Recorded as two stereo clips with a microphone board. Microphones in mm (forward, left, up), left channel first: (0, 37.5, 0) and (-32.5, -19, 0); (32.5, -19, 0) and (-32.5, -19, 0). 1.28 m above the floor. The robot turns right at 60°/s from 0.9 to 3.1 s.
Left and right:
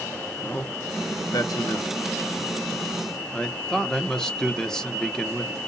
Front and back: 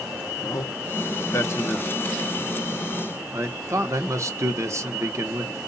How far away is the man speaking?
About 1.1 m.